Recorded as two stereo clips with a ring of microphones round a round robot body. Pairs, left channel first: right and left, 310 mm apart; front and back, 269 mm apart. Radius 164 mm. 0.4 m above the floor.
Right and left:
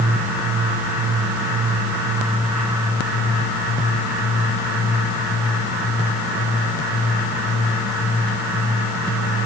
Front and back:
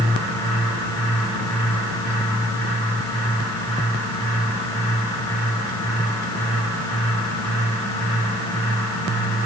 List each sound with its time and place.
Only background noise.